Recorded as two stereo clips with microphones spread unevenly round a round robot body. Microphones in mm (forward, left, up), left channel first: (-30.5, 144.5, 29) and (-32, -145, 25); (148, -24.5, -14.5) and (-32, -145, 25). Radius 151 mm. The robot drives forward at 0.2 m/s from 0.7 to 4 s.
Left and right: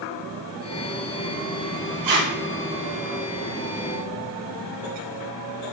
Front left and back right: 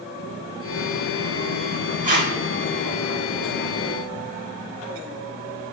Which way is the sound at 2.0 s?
90° right.